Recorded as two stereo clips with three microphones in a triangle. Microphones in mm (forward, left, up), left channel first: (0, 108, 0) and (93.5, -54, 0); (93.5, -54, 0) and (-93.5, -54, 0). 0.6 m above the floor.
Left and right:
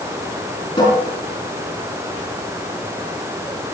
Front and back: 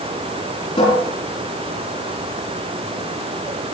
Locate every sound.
0.8 s a cupboard door: 55° left, 6 m